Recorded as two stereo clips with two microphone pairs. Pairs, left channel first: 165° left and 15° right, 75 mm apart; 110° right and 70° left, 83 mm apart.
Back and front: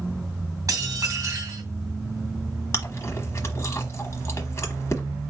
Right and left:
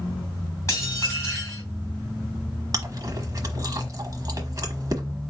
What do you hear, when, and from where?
0.7 s dishes clattering: 60° right, 2.5 m
2.7 s chewing: 115° left, 1.1 m